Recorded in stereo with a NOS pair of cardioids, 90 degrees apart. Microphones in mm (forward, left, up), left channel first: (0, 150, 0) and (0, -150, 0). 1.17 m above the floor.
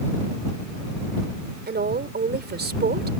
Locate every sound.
1.7 s a woman speaking: 35° right